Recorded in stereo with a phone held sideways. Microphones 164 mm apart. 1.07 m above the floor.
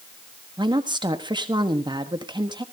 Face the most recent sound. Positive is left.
turn(degrees=-30)  # may be behind; listen again after turning